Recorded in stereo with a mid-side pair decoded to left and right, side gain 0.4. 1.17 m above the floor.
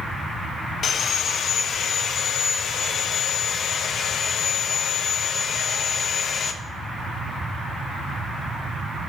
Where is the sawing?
60° left, 0.6 m.